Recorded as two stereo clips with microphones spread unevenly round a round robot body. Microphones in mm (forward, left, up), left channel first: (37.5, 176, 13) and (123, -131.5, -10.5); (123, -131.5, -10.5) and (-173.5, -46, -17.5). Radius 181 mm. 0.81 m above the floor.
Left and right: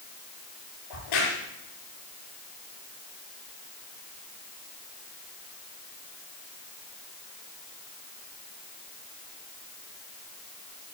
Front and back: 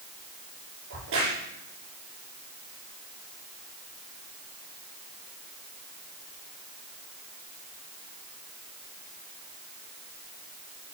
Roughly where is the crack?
Left.